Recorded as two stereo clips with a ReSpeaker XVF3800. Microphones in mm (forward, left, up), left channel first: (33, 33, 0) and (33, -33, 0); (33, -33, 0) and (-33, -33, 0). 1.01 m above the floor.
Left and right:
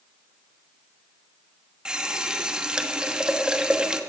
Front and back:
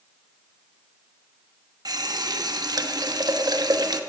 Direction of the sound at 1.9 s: 170° right.